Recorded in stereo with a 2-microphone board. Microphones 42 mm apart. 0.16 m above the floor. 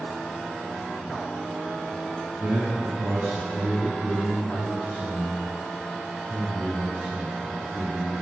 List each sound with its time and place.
2.4 s a man speaking: 40° right (ahead or behind), 2 m; by 8.1 s 45° right (ahead or behind), 5 m